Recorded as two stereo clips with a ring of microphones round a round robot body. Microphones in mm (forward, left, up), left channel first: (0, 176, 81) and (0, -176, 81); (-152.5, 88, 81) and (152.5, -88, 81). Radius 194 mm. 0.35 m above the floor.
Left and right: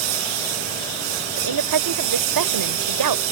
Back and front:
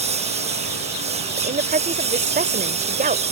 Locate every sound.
0.0 s a lawn mower: 105° right
1.4 s a woman speaking: 95° right